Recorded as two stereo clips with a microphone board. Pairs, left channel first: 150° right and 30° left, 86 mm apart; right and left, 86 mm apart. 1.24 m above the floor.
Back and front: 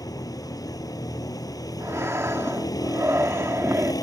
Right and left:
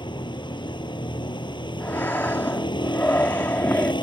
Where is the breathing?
25° right.